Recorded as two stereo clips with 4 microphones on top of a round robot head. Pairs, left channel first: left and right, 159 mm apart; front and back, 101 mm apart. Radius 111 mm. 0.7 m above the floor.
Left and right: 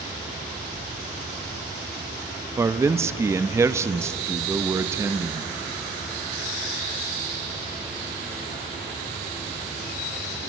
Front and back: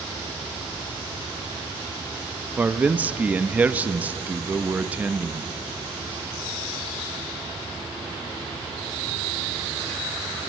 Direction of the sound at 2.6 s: 130° right.